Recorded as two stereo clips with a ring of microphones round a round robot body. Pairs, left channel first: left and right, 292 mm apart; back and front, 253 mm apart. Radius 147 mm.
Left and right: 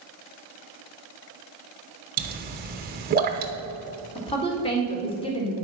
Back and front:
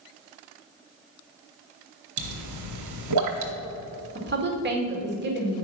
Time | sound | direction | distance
2.2 | a pop | 30° right | 1.0 m
4.2 | a woman speaking | 25° left | 1.7 m